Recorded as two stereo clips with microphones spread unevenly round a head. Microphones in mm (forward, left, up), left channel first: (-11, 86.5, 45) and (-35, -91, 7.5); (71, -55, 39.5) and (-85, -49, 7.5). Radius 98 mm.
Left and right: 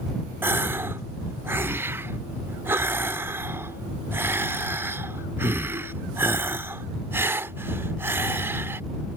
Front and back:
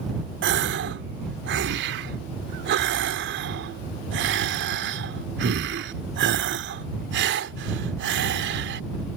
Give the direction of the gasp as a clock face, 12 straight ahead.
6 o'clock.